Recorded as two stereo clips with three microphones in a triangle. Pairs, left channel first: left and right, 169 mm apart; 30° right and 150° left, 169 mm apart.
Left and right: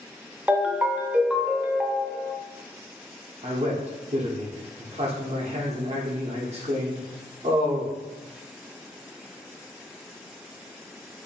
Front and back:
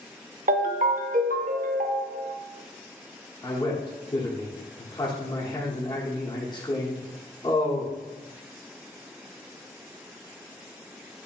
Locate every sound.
0.5 s a ringtone: 170° right, 0.5 m
3.4 s a man speaking: 80° right, 1.0 m